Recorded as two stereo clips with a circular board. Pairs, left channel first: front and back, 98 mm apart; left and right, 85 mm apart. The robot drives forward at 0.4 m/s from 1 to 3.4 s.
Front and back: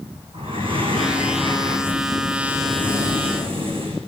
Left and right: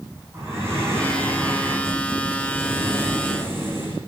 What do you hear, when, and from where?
0.3 s breathing: 150° right, 8 m; by 4.0 s 155° right, 8.5 m